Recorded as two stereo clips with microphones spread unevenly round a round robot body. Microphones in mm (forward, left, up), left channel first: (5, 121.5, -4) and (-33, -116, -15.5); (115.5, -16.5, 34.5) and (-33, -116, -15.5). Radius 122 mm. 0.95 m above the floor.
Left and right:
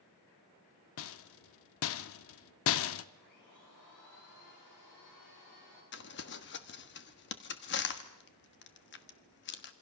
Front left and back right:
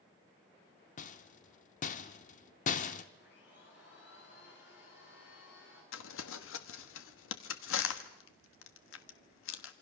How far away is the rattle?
About 0.7 m.